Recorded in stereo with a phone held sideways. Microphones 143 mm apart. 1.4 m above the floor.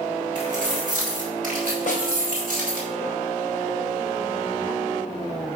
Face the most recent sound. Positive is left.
turn(degrees=65)  # may be behind; listen again after turning